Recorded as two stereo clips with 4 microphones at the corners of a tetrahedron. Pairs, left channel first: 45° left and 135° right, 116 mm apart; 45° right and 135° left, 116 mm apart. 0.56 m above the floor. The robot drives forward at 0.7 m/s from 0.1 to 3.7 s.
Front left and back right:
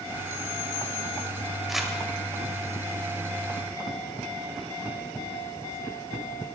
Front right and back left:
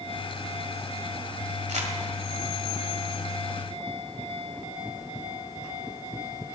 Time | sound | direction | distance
1.7 | crumpling | 135° left | 1.7 m